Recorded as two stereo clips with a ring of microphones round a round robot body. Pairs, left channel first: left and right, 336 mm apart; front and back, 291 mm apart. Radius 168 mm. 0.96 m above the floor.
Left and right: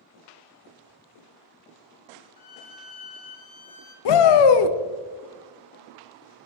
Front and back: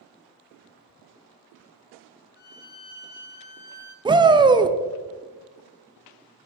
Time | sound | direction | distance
2.4 | a violin | 40° left | 0.8 m
4.0 | a shout | 105° left | 0.6 m